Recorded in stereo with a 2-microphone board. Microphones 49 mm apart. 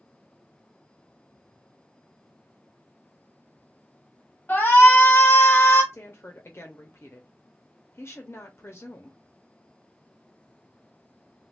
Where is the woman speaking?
55° left (ahead or behind), 0.6 m.